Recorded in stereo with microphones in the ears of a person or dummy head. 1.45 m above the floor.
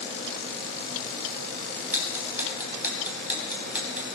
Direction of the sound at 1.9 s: 5° right (ahead or behind).